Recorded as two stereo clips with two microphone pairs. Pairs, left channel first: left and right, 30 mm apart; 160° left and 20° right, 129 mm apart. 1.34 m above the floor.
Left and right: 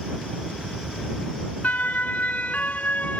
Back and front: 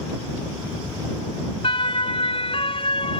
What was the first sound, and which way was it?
A siren, 115° left.